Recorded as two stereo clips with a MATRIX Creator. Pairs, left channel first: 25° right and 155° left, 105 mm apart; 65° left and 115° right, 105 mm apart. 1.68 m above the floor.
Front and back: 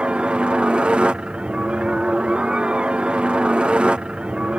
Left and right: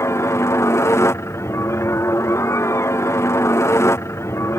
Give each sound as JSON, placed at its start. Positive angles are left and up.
{"t": 0.0, "sound": "a helicopter", "azimuth_deg": 90}